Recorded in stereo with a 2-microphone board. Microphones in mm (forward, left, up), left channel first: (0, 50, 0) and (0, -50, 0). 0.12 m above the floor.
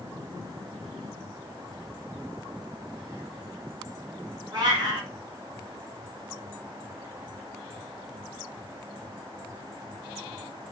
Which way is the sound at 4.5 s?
45° right (ahead or behind).